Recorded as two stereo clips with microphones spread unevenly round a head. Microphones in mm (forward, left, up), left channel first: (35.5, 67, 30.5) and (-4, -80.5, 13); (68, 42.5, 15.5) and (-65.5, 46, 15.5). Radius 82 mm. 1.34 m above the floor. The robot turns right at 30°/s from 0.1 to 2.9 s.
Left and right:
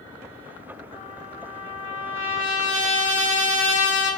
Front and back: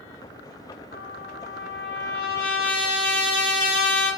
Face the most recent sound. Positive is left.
turn(degrees=0)